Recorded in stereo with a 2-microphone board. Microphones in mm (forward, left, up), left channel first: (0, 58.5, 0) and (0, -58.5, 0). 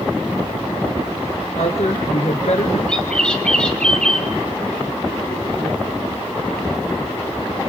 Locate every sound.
1.6 s a woman speaking: 65° left (ahead or behind), 3 m
2.9 s a bird: 5° left (ahead or behind), 3 m